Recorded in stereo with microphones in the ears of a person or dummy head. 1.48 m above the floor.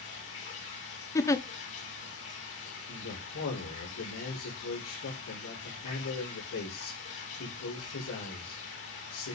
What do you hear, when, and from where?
0.0 s running water: 70° left (ahead or behind), 4 m
1.1 s a giggle: 20° left (ahead or behind), 0.6 m
2.9 s a man speaking: 85° left, 6 m